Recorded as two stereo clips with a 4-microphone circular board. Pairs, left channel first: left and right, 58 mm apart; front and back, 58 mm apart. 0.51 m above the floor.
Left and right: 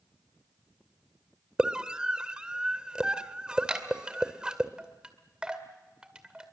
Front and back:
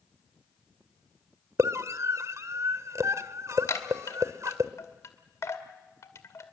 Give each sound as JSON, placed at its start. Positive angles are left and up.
{"t": 1.6, "sound": "a scream", "azimuth_deg": -165, "distance_m": 1.7}
{"t": 3.7, "sound": "a chime", "azimuth_deg": -15, "distance_m": 2.0}